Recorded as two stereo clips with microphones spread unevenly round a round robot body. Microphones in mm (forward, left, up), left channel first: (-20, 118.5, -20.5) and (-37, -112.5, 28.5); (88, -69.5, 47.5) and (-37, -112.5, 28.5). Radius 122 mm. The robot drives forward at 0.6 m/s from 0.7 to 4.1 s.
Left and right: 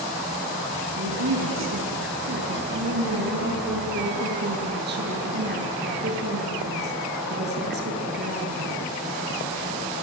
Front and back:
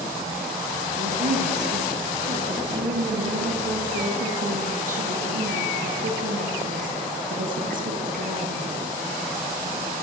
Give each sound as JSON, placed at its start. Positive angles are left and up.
{"t": 1.0, "sound": "a woman speaking", "azimuth_deg": -130, "distance_m": 6.0}